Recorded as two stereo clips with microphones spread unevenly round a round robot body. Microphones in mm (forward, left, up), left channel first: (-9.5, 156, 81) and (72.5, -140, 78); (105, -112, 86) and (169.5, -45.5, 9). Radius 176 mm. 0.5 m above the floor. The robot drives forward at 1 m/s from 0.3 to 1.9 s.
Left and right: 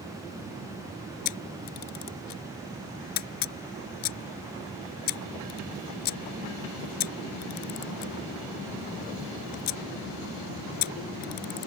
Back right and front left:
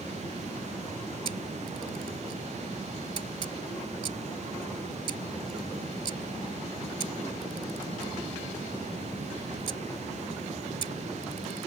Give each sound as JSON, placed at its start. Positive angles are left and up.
{"t": 1.2, "sound": "a camera shutter", "azimuth_deg": 80}